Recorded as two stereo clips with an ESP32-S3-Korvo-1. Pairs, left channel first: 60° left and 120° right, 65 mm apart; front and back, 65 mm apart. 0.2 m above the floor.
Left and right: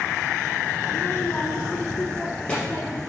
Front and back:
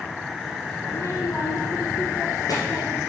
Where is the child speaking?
35° left, 0.8 m; by 3.0 s 15° right, 3 m.